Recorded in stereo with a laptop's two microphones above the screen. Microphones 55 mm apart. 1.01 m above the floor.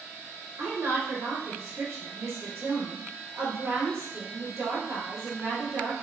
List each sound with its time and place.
0.6 s a woman speaking: 65° right (ahead or behind), 2 m